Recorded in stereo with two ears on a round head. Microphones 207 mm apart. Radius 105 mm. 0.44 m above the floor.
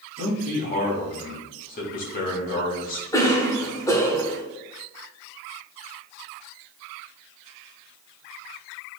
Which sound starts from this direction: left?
A man speaking, at 0.2 s.